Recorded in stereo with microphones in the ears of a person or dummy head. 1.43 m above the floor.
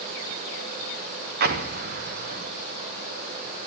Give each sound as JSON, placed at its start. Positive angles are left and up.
{"t": 1.4, "sound": "an explosion", "side_deg": -50, "distance_m": 1.6}